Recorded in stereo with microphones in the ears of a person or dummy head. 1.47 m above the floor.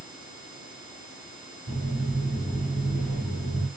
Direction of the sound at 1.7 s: 5° right (ahead or behind).